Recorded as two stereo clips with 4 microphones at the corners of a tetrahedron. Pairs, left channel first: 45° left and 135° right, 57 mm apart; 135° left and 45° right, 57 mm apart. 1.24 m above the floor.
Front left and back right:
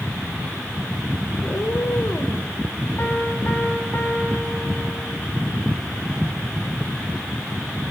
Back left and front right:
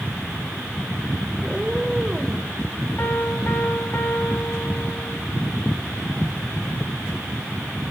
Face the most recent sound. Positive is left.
turn(degrees=90)